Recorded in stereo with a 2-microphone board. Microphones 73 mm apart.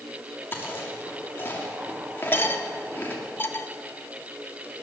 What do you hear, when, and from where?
0.5 s chewing: 30° left (ahead or behind), 2.5 m
2.3 s cutlery clinking: 30° left (ahead or behind), 1.0 m